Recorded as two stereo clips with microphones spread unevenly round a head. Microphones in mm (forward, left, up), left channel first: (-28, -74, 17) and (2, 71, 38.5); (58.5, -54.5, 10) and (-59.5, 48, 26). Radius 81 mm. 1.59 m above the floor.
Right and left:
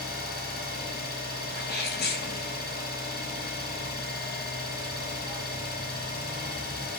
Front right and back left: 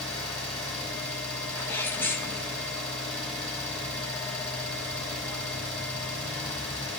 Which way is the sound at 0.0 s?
130° right.